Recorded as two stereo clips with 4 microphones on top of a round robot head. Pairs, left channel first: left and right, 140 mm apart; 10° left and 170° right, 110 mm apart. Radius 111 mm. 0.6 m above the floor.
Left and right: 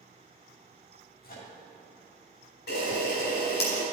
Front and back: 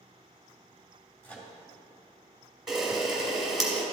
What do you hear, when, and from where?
1.2 s a microwave: 85° left, 2.5 m
2.7 s a camera shutter: 100° left, 2.5 m